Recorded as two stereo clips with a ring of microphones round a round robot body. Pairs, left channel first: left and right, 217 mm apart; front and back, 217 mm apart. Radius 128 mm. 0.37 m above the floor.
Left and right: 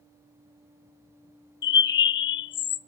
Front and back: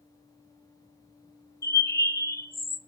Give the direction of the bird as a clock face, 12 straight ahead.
10 o'clock.